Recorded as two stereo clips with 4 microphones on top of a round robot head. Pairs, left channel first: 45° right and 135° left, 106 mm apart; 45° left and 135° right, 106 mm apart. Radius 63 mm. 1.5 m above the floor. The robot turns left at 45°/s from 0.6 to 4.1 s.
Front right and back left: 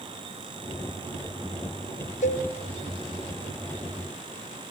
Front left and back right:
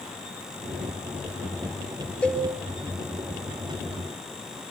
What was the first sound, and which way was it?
A cowbell, 35° right.